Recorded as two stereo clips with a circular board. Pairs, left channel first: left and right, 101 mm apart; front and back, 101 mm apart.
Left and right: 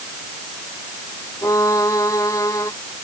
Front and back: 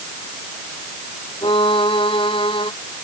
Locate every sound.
1.4 s a violin: 30° left